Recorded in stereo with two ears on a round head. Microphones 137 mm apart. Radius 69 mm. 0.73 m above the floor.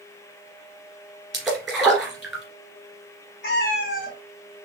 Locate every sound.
1.3 s a splash: centre (ahead or behind), 1.8 m
3.4 s a cat meowing: 80° left, 2 m